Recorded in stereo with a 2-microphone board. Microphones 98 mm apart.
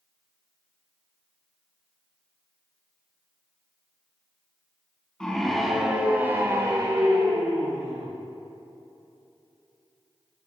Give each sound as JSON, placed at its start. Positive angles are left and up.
{"t": 5.2, "sound": "a scream", "side_deg": 10, "distance_m": 2.0}